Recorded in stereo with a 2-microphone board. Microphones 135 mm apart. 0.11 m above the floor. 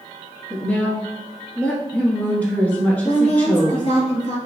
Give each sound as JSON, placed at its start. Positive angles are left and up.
{"t": 0.5, "sound": "a woman speaking", "side_deg": 10, "distance_m": 1.1}
{"t": 3.0, "sound": "a woman speaking", "side_deg": 45, "distance_m": 1.4}